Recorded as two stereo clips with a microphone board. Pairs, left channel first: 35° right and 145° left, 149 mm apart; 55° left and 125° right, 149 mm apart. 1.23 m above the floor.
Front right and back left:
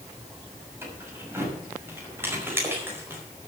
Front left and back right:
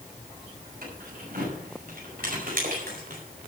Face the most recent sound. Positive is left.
turn(degrees=-140)